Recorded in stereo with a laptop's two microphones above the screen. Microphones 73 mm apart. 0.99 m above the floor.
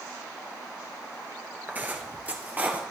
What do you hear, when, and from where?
1.7 s footsteps: 25° right (ahead or behind), 1.0 m; by 2.8 s 20° right (ahead or behind), 1.5 m